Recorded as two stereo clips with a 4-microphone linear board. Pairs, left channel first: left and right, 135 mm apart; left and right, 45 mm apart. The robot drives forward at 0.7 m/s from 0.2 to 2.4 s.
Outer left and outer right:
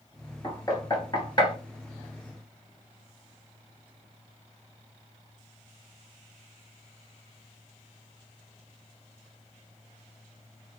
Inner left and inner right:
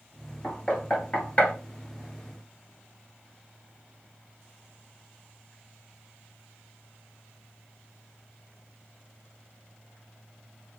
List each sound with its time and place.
0.4 s knocking: 25° left (ahead or behind), 1.8 m; by 1.6 s 35° left (ahead or behind), 1.4 m